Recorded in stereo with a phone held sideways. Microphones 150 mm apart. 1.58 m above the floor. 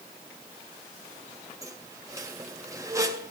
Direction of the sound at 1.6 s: 20° right (ahead or behind).